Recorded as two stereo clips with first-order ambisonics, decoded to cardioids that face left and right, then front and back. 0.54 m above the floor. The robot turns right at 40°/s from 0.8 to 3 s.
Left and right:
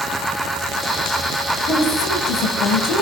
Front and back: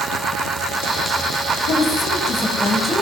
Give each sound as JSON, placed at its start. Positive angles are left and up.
{"t": 1.7, "sound": "a woman speaking", "azimuth_deg": 40, "distance_m": 4.5}